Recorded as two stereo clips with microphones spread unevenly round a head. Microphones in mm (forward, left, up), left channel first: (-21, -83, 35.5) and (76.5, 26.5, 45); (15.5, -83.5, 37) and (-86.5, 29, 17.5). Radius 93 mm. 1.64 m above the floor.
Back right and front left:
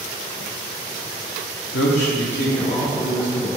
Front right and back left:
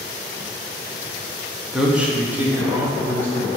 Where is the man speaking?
140° right, 1.0 m; by 3.5 s 150° right, 3.5 m.